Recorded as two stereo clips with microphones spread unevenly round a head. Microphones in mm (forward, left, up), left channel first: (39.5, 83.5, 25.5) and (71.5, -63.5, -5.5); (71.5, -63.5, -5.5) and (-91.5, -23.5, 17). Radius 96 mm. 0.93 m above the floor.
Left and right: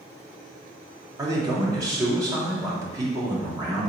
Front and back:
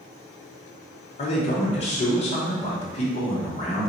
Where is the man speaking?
35° right, 1.0 m.